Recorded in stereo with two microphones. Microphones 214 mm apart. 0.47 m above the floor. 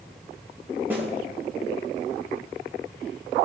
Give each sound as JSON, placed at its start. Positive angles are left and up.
{"t": 0.9, "sound": "a snare drum", "side_deg": -10, "distance_m": 2.5}